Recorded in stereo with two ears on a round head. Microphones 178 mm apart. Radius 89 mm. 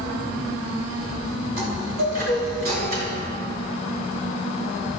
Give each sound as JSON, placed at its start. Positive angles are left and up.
{"t": 1.6, "sound": "a chime", "side_deg": -50, "distance_m": 6.0}